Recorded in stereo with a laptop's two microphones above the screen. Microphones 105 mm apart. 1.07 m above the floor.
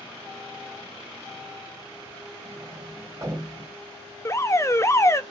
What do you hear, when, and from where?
2.5 s a sliding door: 30° right (ahead or behind), 1.9 m
4.2 s an alarm: 25° left (ahead or behind), 0.6 m